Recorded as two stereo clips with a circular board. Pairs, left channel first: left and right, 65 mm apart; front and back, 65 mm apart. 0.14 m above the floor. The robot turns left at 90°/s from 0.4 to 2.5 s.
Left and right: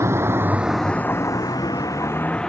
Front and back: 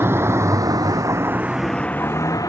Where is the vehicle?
130° right; by 2.5 s 10° left.